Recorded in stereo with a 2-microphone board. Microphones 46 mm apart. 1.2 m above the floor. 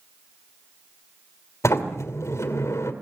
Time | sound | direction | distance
1.6 | a sliding door | 75° left (ahead or behind) | 2.5 m